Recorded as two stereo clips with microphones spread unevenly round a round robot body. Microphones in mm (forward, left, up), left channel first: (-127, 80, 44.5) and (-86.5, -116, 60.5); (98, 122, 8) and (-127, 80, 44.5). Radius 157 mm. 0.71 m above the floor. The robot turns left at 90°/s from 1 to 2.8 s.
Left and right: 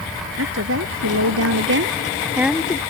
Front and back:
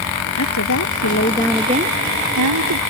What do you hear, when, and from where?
0.4 s a woman speaking: 35° right; by 2.8 s 165° left